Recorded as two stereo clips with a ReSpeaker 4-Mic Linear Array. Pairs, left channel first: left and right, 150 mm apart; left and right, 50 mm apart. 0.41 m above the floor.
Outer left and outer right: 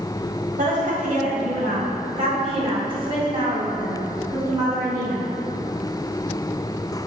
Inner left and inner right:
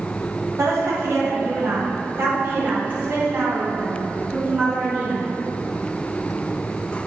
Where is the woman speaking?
60° right (ahead or behind), 1.9 m; by 5.3 s 20° right (ahead or behind), 4 m.